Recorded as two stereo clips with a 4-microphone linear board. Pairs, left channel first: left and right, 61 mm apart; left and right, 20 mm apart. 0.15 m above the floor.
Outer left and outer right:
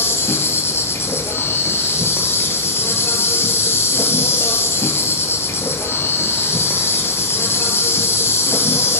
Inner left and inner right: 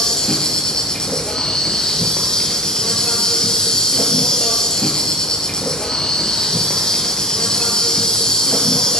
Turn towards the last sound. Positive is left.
turn(degrees=45)  # may be behind; listen again after turning